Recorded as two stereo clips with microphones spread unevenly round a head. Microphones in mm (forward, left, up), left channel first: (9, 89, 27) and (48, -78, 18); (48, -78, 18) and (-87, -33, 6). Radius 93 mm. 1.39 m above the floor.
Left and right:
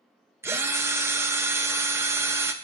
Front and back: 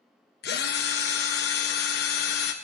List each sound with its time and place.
0.4 s a drill: straight ahead, 1.2 m